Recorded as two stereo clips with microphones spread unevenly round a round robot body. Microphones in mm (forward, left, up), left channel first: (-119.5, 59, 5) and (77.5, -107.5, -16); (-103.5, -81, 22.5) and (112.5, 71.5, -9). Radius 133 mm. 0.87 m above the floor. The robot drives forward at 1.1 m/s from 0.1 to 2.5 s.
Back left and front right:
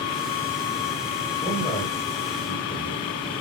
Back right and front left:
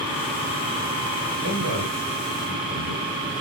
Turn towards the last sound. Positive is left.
turn(degrees=80)